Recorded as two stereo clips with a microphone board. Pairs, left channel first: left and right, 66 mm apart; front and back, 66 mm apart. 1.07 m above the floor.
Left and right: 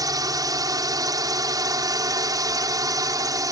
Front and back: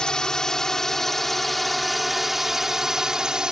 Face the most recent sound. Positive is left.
turn(degrees=-105)